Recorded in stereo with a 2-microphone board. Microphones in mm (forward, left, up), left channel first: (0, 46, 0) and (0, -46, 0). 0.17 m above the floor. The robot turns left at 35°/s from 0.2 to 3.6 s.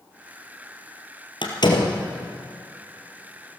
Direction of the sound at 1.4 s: 60° left (ahead or behind).